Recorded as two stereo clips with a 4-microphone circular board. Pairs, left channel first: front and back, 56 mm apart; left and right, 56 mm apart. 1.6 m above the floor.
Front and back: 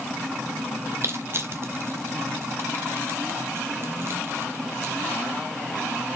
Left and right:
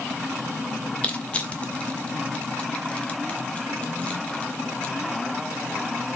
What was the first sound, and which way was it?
Crushing, 150° left.